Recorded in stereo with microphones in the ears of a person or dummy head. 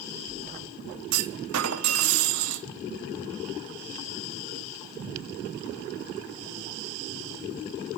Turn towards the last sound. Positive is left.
turn(degrees=-75)  # may be behind; listen again after turning